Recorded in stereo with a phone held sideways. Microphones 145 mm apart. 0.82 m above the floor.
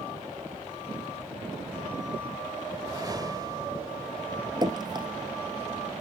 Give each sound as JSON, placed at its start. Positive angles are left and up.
{"t": 2.7, "sound": "a whoosh", "side_deg": -25}
{"t": 4.6, "sound": "dripping", "side_deg": -30}